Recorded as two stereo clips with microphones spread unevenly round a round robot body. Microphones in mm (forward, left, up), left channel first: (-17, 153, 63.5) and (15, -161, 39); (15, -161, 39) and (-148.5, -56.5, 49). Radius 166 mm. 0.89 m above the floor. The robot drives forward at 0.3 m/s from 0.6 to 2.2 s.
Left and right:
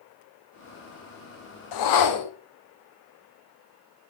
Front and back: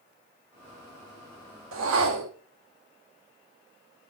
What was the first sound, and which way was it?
A whoosh, 120° left.